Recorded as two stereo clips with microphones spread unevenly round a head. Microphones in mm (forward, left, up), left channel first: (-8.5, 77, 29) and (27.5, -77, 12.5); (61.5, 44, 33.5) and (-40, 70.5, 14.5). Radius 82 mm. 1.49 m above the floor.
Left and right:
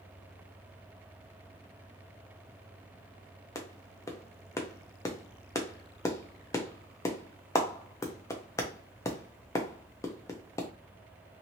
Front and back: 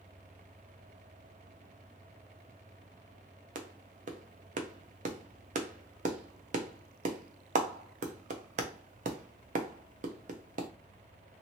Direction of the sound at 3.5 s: 175° left.